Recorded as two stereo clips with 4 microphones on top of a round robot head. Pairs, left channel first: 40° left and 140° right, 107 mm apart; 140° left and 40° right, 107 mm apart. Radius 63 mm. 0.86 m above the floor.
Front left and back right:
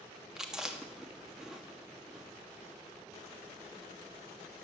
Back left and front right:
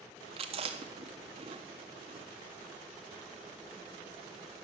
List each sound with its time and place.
0.4 s chewing: 55° right, 1.7 m